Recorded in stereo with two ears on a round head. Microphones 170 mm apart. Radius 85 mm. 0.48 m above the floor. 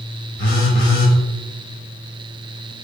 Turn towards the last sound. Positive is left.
turn(degrees=40)  # may be behind; listen again after turning